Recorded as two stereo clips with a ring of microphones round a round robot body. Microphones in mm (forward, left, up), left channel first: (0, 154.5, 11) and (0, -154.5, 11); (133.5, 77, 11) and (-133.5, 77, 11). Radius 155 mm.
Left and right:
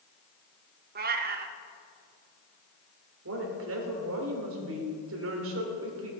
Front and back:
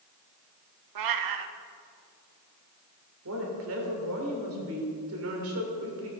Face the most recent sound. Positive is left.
turn(degrees=-135)